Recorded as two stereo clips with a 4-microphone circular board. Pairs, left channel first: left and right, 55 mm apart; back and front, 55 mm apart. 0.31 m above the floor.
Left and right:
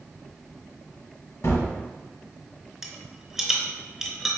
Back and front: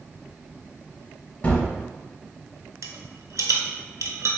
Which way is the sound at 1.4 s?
120° left.